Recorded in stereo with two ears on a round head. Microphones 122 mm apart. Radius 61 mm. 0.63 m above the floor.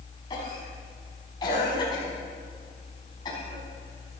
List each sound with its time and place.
0.3 s a cough: 30° left (ahead or behind), 4.5 m